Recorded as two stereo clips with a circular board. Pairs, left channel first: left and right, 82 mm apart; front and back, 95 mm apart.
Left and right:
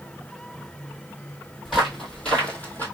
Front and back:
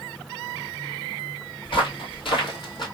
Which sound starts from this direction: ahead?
Footsteps, at 1.6 s.